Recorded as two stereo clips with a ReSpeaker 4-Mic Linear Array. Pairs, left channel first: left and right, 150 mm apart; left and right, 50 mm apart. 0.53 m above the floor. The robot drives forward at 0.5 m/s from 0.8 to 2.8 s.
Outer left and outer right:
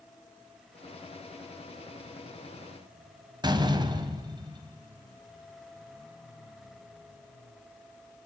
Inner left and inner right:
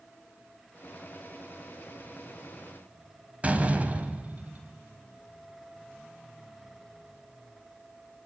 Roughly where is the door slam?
Right.